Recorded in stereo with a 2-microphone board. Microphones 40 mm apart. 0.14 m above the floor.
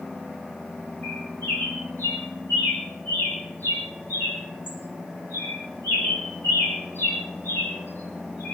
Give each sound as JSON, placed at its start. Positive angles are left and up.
{"t": 1.0, "sound": "a bird", "side_deg": 65, "distance_m": 7.5}